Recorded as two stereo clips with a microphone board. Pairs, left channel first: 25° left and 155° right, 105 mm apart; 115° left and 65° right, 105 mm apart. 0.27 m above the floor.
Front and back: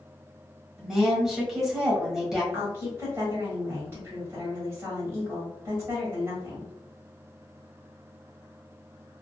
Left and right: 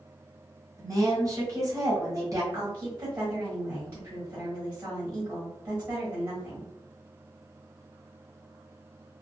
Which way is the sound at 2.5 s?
115° right.